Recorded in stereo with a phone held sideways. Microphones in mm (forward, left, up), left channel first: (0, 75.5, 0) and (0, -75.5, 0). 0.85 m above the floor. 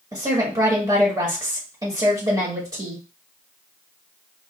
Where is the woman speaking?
30° right (ahead or behind), 1.3 m.